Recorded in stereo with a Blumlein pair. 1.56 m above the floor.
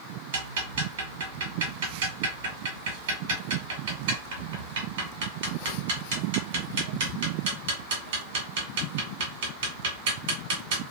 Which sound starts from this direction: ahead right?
Ticking, at 0.3 s.